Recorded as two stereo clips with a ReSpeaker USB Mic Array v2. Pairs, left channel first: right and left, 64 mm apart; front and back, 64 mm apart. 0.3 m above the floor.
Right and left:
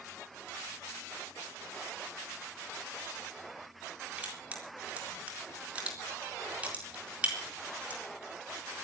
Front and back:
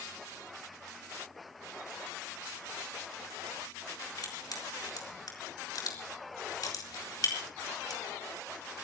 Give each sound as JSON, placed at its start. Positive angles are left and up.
{"t": 4.2, "sound": "crushing", "azimuth_deg": 20, "distance_m": 4.0}